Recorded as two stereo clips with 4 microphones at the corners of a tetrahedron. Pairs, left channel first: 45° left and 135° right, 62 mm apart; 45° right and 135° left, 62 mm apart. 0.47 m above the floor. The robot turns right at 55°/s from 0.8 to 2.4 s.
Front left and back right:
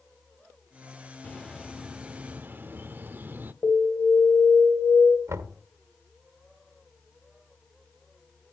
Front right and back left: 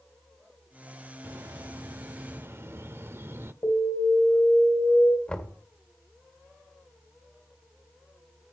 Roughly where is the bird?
Left.